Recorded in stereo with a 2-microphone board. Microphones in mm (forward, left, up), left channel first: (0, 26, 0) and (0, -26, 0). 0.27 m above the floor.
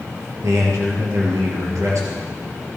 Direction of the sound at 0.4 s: 70° right (ahead or behind).